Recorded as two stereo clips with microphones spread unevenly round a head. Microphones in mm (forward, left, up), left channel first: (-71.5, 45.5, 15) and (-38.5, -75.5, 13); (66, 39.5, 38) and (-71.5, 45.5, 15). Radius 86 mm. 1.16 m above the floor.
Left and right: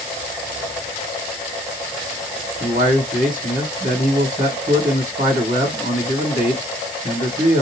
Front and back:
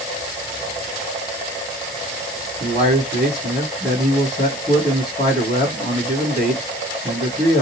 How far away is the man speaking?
About 1.5 m.